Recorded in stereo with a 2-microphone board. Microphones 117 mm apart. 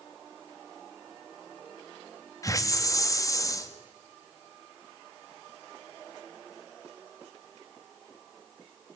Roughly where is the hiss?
Left.